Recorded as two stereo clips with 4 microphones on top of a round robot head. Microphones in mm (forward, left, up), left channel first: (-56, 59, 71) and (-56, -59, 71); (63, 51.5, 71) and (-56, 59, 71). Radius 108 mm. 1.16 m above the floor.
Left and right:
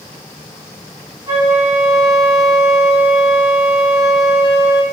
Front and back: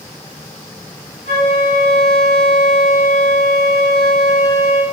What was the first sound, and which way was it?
A flute, 25° left.